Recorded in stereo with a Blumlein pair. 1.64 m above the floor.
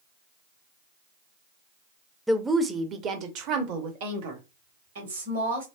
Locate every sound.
2.3 s a woman speaking: straight ahead, 0.7 m; by 5.7 s 65° right, 2 m